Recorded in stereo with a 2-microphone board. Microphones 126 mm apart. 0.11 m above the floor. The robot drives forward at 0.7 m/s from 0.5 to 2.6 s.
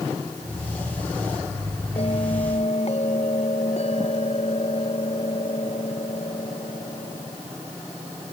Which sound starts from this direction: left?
A bell, at 2.0 s.